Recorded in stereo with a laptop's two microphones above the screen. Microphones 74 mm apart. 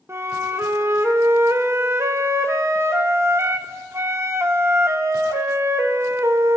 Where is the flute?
35° right (ahead or behind), 0.9 m.